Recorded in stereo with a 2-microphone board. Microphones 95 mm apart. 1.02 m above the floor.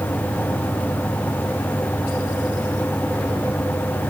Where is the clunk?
I don't hear a clunk.